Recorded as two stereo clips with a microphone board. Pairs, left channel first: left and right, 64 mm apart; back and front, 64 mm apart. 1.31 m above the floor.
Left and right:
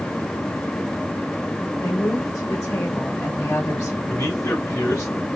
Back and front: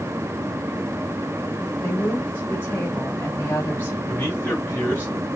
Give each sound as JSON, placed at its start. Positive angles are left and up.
{"t": 1.8, "sound": "a woman speaking", "azimuth_deg": 120, "distance_m": 2.5}
{"t": 4.1, "sound": "a man speaking", "azimuth_deg": 120, "distance_m": 3.0}